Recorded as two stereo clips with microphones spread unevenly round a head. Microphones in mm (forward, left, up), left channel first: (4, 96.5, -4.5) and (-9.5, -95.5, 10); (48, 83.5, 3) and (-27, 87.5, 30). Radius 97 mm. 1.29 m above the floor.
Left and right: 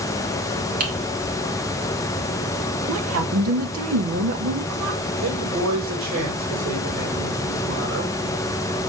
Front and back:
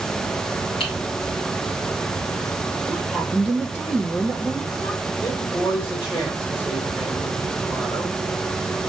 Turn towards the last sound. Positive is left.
turn(degrees=-75)